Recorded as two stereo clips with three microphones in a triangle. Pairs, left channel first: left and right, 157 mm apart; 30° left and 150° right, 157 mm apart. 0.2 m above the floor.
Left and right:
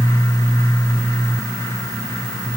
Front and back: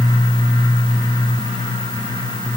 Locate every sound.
Only background noise.